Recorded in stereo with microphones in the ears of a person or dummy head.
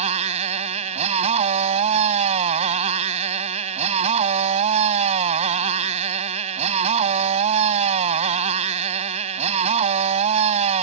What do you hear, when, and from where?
0.0 s a motorcycle: 40° right (ahead or behind)